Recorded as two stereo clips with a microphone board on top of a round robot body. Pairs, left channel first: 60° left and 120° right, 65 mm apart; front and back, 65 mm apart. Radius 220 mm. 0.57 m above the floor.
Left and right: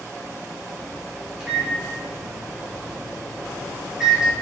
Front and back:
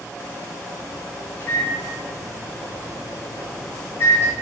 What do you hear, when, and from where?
1.4 s a microwave: 40° right, 1.0 m